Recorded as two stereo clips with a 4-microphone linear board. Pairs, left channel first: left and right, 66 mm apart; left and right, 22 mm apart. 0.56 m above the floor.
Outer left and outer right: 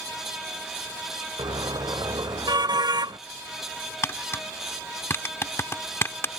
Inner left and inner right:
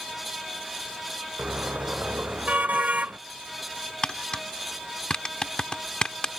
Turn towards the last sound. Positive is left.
turn(degrees=40)  # may be behind; listen again after turning